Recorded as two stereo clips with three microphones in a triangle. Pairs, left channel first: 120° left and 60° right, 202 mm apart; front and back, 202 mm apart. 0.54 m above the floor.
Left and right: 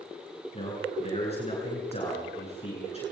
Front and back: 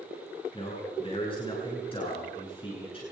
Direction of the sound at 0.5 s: 60° left.